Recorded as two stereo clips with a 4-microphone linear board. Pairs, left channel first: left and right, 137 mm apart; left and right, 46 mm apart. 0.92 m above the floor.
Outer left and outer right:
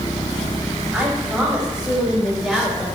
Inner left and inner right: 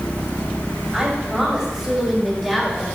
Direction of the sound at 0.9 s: 10° right (ahead or behind).